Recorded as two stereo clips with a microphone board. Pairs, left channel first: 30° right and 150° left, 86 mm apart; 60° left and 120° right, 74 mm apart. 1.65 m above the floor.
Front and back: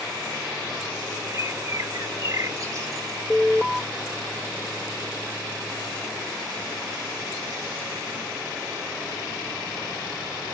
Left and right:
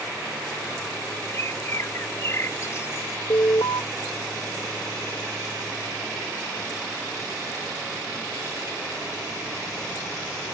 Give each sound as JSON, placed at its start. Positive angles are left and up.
{"t": 1.3, "sound": "a bird", "azimuth_deg": 105}
{"t": 3.3, "sound": "an alarm", "azimuth_deg": 65}